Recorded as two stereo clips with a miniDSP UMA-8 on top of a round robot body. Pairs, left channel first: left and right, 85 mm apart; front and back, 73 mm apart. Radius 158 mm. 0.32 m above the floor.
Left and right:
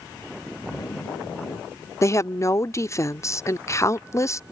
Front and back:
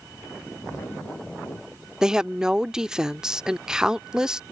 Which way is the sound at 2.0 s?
105° left.